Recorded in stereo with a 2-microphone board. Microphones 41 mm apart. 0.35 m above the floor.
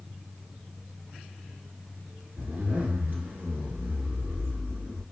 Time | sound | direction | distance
2.4 | a zipper | 45° right (ahead or behind) | 1.0 m